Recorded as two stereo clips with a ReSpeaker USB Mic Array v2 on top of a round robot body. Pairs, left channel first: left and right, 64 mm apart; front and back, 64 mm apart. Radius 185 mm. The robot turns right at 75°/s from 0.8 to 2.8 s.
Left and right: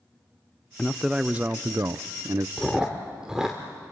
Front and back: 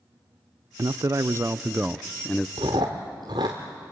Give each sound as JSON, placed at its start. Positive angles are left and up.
{"t": 0.8, "sound": "a man speaking", "azimuth_deg": 170, "distance_m": 0.6}
{"t": 2.6, "sound": "chewing", "azimuth_deg": 175, "distance_m": 0.6}